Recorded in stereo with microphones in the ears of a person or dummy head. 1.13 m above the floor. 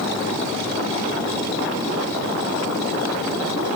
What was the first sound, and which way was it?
Only background noise.